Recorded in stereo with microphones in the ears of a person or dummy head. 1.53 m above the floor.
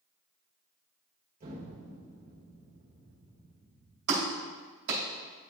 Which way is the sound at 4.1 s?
70° right (ahead or behind).